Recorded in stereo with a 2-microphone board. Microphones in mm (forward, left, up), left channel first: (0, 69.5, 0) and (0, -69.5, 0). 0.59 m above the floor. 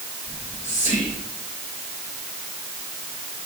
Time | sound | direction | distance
0.3 | whispering | 55° left (ahead or behind) | 2 m